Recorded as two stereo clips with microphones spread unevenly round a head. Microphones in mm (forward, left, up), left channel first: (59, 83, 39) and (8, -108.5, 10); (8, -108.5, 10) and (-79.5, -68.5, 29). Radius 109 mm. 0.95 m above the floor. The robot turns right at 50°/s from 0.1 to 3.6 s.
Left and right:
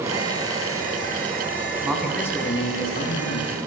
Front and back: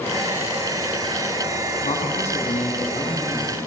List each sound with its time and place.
1.8 s a man speaking: 25° right, 7.5 m; by 3.7 s 60° left, 7.5 m